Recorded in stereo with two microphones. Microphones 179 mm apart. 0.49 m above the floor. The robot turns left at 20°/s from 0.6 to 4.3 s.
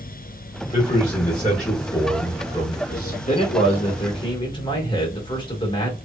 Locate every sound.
0.7 s a man speaking: 75° left, 1.8 m; by 3.2 s 25° left, 1.8 m
3.3 s a man speaking: 40° left (ahead or behind), 1.3 m; by 6.0 s 25° left (ahead or behind), 1.3 m